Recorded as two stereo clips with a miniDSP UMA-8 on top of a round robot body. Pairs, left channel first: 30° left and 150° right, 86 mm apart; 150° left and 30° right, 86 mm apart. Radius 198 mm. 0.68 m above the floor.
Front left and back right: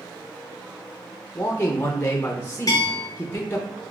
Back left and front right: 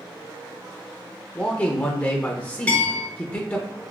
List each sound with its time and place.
1.4 s a man speaking: 85° left, 0.7 m
2.7 s a bell: 75° left, 0.7 m